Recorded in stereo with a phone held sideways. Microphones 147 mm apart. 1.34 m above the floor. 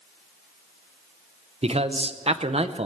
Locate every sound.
1.6 s a man speaking: 45° right (ahead or behind), 0.7 m